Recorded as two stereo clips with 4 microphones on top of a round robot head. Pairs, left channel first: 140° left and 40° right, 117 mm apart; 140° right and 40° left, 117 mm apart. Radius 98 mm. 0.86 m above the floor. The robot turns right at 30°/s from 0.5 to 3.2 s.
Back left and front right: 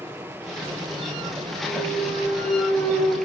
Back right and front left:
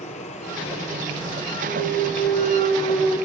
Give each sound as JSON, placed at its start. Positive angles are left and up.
{"t": 0.0, "sound": "running water", "azimuth_deg": -115, "distance_m": 6.0}
{"t": 1.7, "sound": "a clunk", "azimuth_deg": 165, "distance_m": 6.0}